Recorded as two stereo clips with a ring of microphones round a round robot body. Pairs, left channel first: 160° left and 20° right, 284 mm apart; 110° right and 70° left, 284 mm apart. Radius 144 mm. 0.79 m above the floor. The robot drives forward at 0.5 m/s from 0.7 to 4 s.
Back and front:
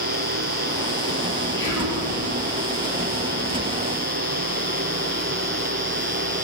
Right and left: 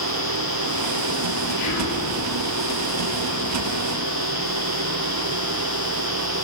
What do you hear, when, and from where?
1.6 s whispering: 125° right, 3.5 m; by 2.0 s 130° right, 3.5 m